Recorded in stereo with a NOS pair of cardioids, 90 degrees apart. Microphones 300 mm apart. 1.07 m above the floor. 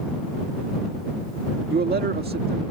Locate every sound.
1.7 s a man speaking: 30° right